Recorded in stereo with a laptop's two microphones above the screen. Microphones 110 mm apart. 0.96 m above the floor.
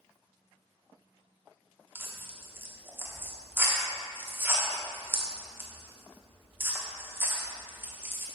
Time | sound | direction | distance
1.9 | tearing paper | 20° right (ahead or behind) | 1.1 m